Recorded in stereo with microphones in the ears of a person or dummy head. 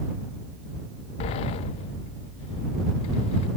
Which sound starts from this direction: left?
A sliding door, at 1.2 s.